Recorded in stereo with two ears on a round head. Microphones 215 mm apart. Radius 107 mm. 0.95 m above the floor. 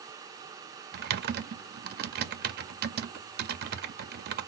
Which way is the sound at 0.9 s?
40° right (ahead or behind).